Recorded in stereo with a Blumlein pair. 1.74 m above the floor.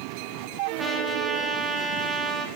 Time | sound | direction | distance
0.8 | a trumpet | 10° right | 0.7 m